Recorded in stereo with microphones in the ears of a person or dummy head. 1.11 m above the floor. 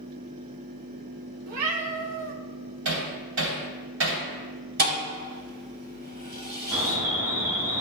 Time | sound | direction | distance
1.5 | a cat meowing | 80° right | 1.2 m
2.9 | hammering | 85° right | 3 m
4.8 | a thud | 60° right (ahead or behind) | 3 m
6.7 | an alarm | 20° right (ahead or behind) | 3.5 m